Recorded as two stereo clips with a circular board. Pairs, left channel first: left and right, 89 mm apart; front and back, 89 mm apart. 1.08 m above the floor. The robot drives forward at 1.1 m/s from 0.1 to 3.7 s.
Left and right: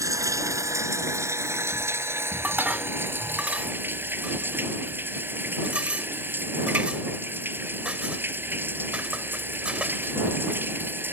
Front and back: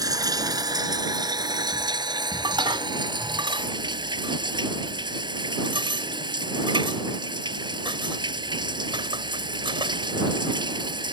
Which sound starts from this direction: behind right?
Running water, at 0.0 s.